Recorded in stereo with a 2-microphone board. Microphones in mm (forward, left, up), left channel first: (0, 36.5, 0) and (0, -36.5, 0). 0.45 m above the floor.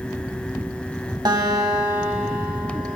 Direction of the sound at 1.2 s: 75° right (ahead or behind).